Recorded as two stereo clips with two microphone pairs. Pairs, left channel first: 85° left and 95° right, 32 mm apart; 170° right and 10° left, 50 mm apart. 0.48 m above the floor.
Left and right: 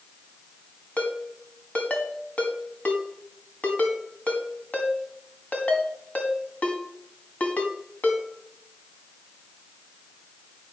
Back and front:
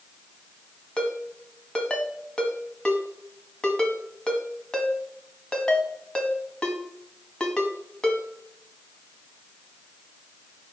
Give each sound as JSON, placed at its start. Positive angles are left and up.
{"t": 1.0, "sound": "a ringtone", "azimuth_deg": 120, "distance_m": 1.8}